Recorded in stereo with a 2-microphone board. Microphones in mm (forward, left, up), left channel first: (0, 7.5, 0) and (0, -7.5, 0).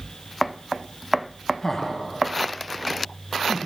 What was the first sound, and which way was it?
Laughter, 30° left (ahead or behind).